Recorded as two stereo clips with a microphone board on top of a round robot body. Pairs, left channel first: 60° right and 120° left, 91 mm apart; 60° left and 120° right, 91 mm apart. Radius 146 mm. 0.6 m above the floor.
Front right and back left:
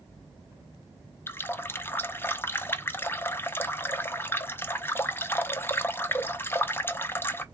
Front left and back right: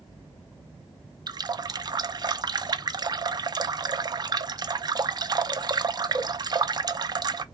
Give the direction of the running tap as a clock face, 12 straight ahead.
4 o'clock.